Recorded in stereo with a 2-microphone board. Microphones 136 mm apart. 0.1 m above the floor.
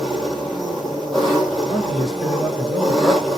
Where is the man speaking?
Centre (ahead or behind), 1.2 m.